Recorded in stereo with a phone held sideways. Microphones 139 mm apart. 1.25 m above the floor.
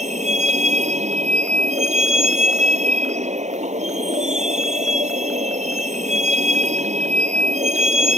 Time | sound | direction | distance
0.0 | a vehicle | 60° right (ahead or behind) | ?